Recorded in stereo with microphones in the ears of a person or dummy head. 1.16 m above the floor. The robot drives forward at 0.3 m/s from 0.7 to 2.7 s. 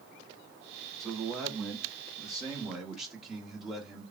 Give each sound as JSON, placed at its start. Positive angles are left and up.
{"t": 1.0, "sound": "a man speaking", "side_deg": -5, "distance_m": 0.8}